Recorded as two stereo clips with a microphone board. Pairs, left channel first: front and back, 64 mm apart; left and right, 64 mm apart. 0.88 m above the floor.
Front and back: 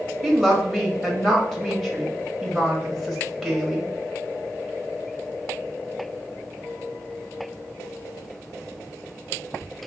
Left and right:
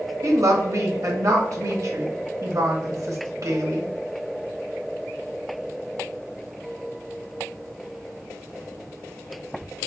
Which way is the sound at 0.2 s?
90° right.